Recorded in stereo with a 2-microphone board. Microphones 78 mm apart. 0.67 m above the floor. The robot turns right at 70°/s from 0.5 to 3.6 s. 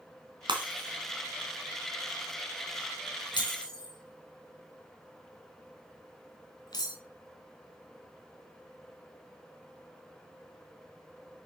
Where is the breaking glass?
85° right, 3 m; by 7.0 s 60° left (ahead or behind), 3 m.